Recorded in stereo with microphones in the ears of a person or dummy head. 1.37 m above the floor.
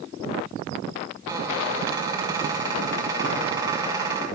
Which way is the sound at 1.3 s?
20° right (ahead or behind).